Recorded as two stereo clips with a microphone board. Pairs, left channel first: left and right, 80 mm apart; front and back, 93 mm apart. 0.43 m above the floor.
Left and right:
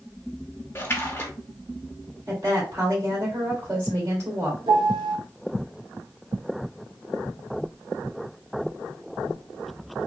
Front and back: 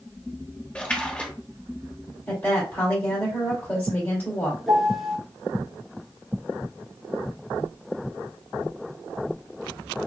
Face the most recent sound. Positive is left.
turn(degrees=-90)